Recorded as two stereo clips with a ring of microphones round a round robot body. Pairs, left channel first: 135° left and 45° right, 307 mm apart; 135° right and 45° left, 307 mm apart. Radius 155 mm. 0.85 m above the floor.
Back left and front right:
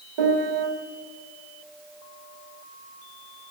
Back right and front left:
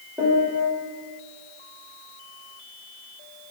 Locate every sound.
0.2 s a piano: 40° right, 1.6 m